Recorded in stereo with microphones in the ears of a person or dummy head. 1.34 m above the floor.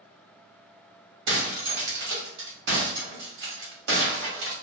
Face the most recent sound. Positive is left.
turn(degrees=-60)  # may be behind; listen again after turning